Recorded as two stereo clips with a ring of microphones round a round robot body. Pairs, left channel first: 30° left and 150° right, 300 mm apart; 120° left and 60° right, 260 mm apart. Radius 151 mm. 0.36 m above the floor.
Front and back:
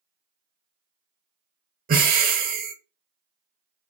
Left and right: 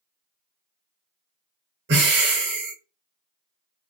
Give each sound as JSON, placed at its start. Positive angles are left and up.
{"t": 1.9, "sound": "breathing", "azimuth_deg": -95, "distance_m": 0.8}